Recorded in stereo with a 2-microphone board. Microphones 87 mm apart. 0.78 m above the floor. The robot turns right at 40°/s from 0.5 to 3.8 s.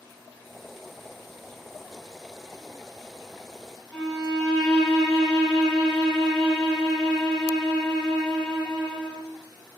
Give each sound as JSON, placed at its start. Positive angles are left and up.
{"t": 3.9, "sound": "a violin", "side_deg": 10, "distance_m": 1.1}